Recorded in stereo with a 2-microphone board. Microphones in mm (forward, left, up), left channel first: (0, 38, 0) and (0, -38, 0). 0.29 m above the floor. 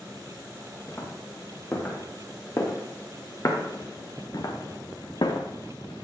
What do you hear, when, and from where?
0.9 s footsteps: 30° left (ahead or behind), 4 m; by 6.0 s 80° left, 1.4 m